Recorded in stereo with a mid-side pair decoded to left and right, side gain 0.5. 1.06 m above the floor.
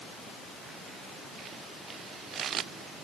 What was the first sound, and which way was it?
Only background noise.